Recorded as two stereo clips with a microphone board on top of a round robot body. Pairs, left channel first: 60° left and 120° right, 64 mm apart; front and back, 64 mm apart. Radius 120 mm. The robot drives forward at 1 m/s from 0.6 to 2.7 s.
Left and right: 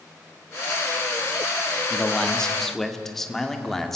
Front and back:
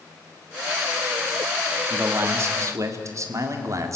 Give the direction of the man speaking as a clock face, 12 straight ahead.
8 o'clock.